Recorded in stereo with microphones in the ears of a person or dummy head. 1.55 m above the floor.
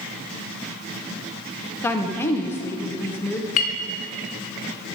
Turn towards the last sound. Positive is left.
turn(degrees=45)  # may be behind; listen again after turning